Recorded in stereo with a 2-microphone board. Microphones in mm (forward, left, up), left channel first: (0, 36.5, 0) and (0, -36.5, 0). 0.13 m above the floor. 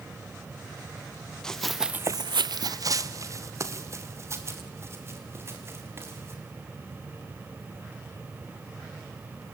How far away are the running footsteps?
About 1.2 m.